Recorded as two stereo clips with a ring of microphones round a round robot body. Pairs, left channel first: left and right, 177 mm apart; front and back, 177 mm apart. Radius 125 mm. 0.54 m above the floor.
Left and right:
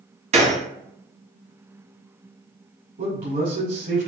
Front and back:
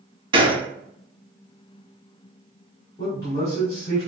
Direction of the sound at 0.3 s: 125° right.